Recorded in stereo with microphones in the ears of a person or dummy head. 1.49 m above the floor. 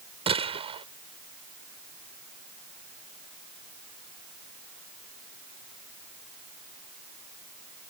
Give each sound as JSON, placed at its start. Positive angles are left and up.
{"t": 0.3, "sound": "a gunshot", "side_deg": -30}